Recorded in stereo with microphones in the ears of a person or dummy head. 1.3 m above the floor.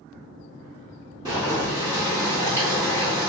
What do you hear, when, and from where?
1.2 s boiling: 20° right (ahead or behind), 0.9 m